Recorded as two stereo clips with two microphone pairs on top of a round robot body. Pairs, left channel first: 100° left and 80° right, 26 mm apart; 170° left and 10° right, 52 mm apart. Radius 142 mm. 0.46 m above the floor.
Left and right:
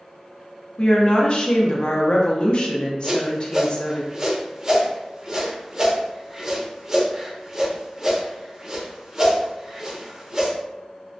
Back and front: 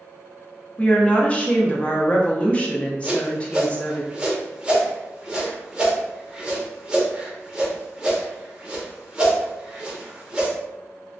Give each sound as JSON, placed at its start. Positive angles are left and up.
{"t": 0.8, "sound": "a woman speaking", "azimuth_deg": 125, "distance_m": 0.7}
{"t": 3.0, "sound": "a whoosh", "azimuth_deg": -60, "distance_m": 1.1}